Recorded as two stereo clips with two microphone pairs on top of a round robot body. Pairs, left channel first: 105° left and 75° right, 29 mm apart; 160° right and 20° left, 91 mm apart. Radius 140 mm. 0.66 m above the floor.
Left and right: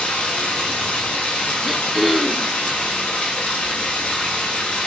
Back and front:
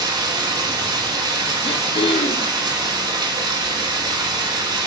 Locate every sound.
0.0 s running water: 55° left, 1.0 m
1.6 s throat clearing: 160° right, 0.6 m